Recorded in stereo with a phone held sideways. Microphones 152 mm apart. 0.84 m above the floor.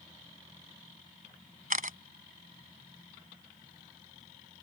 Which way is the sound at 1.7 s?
65° right (ahead or behind).